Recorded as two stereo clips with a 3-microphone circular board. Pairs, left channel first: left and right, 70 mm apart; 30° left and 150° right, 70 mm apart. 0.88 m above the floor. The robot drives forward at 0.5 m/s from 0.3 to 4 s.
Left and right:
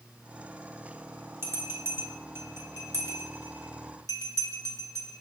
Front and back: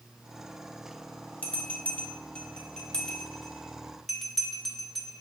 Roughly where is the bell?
Ahead right.